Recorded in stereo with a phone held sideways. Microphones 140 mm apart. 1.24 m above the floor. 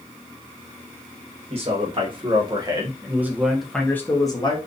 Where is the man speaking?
45° right (ahead or behind), 1.5 m; by 4.6 s 35° left (ahead or behind), 0.9 m.